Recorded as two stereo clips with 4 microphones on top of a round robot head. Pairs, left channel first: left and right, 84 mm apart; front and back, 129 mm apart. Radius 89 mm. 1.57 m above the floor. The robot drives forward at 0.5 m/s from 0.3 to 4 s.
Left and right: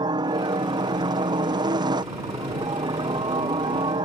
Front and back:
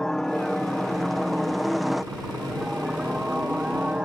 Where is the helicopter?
85° right; by 4.0 s 95° right.